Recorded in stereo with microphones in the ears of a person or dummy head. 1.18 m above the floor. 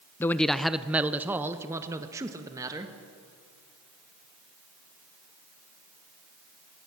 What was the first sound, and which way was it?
A man speaking, 15° left (ahead or behind).